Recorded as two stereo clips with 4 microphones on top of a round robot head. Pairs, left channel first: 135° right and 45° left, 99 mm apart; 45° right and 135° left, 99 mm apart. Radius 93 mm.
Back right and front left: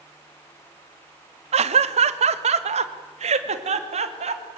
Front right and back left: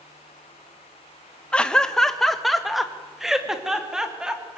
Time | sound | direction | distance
1.5 | laughter | 35° left | 1.2 m